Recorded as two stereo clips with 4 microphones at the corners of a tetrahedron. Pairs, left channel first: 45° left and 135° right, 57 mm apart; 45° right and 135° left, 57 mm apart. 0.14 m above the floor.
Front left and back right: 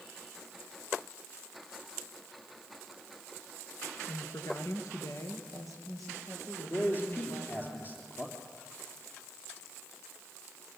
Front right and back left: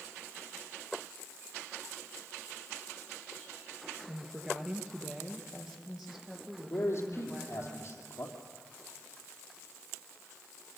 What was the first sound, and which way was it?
A woman speaking, 70° left.